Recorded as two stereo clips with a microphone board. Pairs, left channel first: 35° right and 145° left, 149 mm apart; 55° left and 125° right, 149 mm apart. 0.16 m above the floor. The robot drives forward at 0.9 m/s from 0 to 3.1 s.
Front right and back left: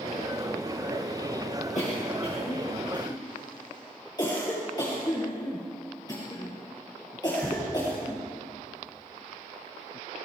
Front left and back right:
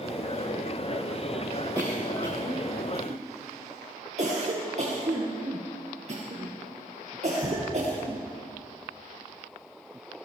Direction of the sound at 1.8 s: 65° right.